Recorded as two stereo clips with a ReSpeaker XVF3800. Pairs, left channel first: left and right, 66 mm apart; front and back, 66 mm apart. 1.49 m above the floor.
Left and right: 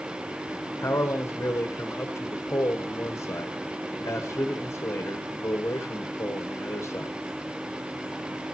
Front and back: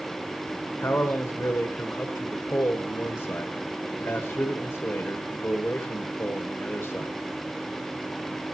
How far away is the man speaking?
About 1.1 m.